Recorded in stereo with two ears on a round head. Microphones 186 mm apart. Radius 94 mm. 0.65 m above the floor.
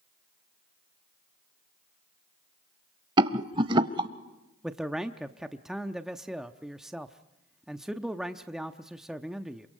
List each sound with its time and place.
3.2 s a rattle: 25° right (ahead or behind), 0.6 m
4.6 s a man speaking: centre (ahead or behind), 0.7 m